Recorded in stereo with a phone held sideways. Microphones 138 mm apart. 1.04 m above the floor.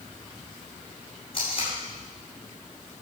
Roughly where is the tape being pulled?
Left.